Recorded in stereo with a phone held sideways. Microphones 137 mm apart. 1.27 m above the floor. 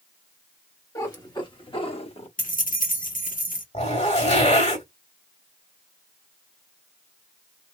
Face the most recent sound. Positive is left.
turn(degrees=50)  # may be behind; listen again after turning